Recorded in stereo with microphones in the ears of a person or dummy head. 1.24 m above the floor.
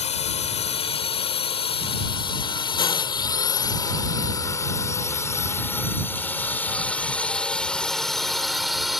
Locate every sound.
0.0 s a drone: 40° left (ahead or behind); by 9.0 s 5° left (ahead or behind)